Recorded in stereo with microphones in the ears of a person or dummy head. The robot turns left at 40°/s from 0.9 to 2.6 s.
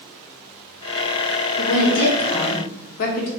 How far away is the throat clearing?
I don't hear throat clearing.